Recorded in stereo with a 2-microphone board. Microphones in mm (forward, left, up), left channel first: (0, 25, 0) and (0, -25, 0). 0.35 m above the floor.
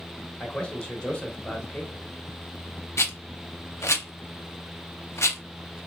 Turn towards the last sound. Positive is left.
turn(degrees=70)  # may be behind; listen again after turning